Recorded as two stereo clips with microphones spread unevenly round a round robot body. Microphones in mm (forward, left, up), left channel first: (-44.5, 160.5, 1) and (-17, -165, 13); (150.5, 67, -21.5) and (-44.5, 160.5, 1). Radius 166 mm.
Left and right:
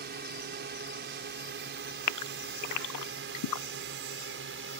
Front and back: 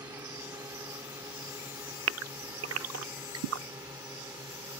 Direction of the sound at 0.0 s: 130° right.